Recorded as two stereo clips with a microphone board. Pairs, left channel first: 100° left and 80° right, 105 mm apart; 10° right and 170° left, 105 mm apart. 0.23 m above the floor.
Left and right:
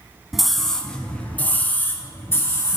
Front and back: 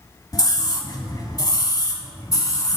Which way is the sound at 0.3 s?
5° left.